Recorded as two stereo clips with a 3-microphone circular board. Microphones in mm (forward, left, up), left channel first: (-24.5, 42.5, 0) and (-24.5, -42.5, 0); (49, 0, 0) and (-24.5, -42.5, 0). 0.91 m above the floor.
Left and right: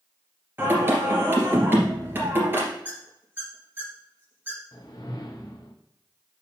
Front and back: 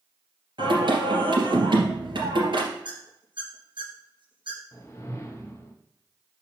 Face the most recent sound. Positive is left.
turn(degrees=75)